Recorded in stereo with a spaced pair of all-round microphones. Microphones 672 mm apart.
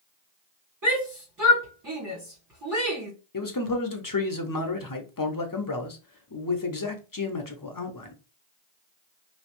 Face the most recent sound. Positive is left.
turn(degrees=30)  # may be behind; listen again after turning